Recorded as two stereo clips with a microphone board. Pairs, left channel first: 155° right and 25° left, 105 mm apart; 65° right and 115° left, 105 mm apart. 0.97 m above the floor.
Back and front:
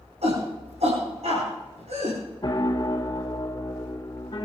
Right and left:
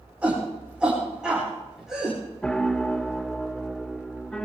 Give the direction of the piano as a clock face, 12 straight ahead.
5 o'clock.